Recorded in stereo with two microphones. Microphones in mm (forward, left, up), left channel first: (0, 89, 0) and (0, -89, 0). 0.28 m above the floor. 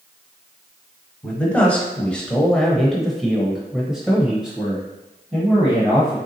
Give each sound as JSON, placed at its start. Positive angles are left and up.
{"t": 1.2, "sound": "a man speaking", "side_deg": 10, "distance_m": 1.2}